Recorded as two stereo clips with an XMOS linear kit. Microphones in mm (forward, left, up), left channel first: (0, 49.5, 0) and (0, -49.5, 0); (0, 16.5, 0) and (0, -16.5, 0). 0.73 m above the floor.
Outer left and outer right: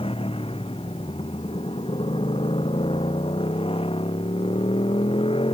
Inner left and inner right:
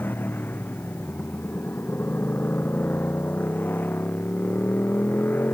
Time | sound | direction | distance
0.0 | a motorcycle | 70° left (ahead or behind) | ?